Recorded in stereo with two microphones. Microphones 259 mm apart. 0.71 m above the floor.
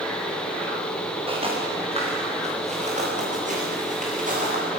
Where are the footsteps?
20° right (ahead or behind), 7.5 m; by 4.6 s 30° right (ahead or behind), 10 m.